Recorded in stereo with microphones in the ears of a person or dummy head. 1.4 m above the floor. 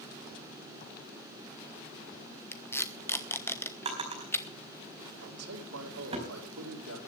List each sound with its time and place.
2.5 s tape being pulled: 10° left (ahead or behind), 1.2 m
3.9 s a drawer: 30° right (ahead or behind), 4.5 m
5.2 s a man speaking: 85° right, 4.5 m